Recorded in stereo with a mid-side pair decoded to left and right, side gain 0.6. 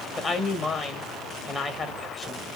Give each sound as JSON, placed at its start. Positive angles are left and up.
{"t": 0.2, "sound": "a woman speaking", "azimuth_deg": 30, "distance_m": 1.6}